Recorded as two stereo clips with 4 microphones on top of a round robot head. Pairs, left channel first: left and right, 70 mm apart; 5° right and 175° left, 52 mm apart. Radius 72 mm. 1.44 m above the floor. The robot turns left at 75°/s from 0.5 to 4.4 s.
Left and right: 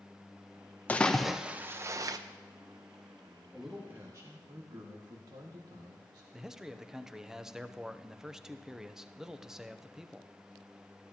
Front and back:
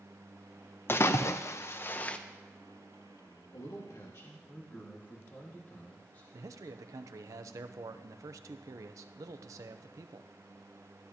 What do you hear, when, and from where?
0.9 s a splash: 30° left, 0.7 m; by 2.2 s 70° right, 0.7 m
3.5 s a man speaking: 5° left, 1.8 m; by 6.2 s 60° right, 1.8 m
6.3 s a man speaking: 170° right, 0.6 m